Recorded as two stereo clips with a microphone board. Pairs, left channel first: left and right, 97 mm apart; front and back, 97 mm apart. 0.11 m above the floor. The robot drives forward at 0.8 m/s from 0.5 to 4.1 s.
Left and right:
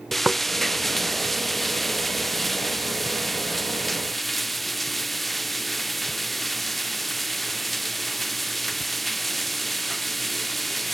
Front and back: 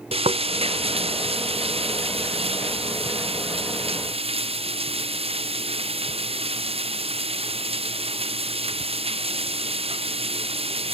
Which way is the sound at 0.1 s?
Straight behind.